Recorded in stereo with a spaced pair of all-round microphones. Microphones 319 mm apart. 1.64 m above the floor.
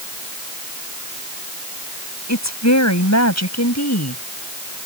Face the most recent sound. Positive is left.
turn(degrees=55)  # may be behind; listen again after turning